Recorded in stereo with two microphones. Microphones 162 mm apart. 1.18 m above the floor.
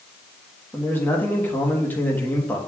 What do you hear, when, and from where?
0.7 s a man speaking: 10° left (ahead or behind), 1.5 m